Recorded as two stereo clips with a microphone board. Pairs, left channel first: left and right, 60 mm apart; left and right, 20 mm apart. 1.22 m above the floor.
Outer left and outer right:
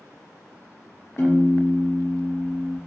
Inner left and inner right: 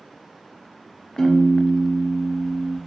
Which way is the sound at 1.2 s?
50° left (ahead or behind).